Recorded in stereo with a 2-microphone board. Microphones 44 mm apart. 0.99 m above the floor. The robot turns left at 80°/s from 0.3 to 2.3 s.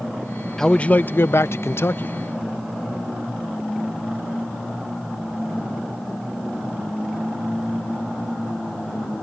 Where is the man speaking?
170° left; by 2.1 s 45° left.